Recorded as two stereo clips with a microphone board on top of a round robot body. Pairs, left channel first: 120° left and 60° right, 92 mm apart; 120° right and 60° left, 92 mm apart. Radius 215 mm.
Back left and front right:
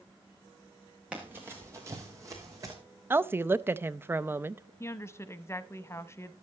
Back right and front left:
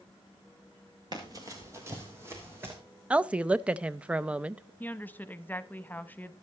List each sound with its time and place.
1.1 s running footsteps: 20° left, 0.7 m; by 2.8 s 5° right, 2.5 m
3.1 s a woman speaking: 10° right, 0.7 m
4.8 s a woman speaking: 175° left, 0.9 m